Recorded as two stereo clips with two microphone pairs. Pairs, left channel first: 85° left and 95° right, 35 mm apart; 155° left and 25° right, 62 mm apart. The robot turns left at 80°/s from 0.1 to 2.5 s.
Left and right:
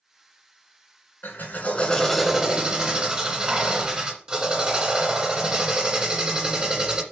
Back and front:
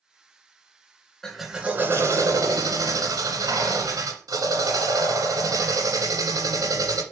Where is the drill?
75° left, 1.9 m; by 7.0 s 30° right, 1.9 m.